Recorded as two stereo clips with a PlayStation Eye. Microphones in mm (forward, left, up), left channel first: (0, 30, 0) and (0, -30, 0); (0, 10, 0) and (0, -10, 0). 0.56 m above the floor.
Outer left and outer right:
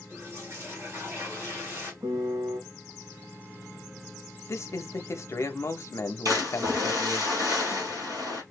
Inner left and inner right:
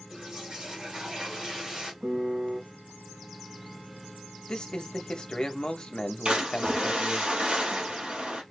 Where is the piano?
75° right (ahead or behind), 1.4 m.